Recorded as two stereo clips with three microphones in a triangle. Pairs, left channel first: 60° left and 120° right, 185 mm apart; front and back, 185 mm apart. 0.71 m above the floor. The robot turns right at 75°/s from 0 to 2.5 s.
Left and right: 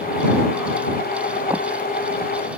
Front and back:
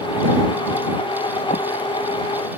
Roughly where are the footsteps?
Ahead right.